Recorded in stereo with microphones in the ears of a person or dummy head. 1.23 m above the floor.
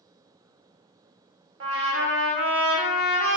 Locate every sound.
1.6 s a trumpet: 65° right (ahead or behind), 0.8 m